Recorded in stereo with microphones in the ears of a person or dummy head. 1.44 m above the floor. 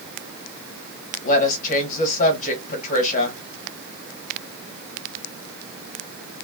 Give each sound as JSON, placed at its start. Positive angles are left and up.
{"t": 1.2, "sound": "a woman speaking", "side_deg": 50, "distance_m": 1.8}